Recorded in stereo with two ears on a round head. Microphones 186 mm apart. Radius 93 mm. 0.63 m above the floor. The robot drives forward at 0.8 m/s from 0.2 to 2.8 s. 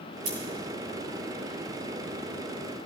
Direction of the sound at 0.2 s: 80° right.